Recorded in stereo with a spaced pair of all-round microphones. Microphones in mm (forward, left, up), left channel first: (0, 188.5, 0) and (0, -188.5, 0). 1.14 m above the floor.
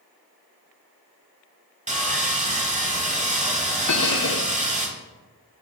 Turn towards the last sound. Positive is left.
turn(degrees=50)  # may be behind; listen again after turning